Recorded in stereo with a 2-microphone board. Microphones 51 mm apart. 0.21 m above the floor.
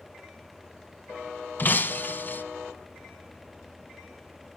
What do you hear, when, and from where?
1.6 s breaking glass: 40° left (ahead or behind), 0.9 m